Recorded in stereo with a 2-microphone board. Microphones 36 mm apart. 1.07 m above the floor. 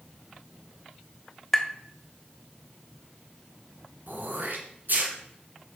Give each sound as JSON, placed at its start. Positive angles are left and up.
{"t": 1.5, "sound": "tapping", "side_deg": 5, "distance_m": 0.7}
{"t": 4.1, "sound": "throat clearing", "side_deg": -65, "distance_m": 2.5}